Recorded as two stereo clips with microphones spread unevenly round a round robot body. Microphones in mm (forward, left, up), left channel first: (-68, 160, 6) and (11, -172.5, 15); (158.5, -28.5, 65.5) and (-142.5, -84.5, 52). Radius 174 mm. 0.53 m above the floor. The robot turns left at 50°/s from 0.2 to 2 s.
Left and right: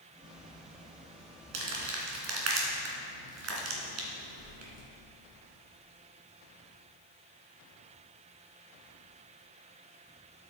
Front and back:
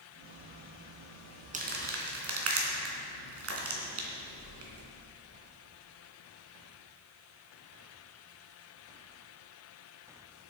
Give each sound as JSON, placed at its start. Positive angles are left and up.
{"t": 1.5, "sound": "crumpling", "azimuth_deg": -100, "distance_m": 2.5}